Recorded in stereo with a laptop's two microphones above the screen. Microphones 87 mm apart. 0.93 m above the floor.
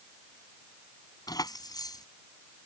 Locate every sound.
1.3 s keys jangling: 50° left (ahead or behind)